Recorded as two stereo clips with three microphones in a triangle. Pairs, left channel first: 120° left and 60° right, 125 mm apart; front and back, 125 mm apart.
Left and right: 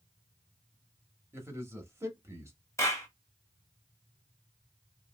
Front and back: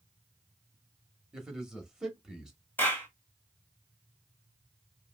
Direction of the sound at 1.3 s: 100° right.